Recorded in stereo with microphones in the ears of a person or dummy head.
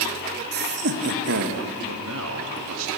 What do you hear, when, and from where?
0.5 s laughter: 50° right (ahead or behind), 1.7 m; by 1.6 s 65° right (ahead or behind), 2 m
1.9 s a man speaking: 75° right (ahead or behind), 1.9 m